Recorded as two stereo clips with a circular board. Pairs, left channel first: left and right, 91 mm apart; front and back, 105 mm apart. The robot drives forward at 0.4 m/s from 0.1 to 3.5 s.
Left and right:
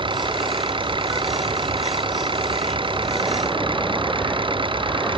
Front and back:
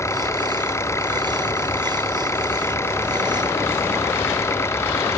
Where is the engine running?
65° right.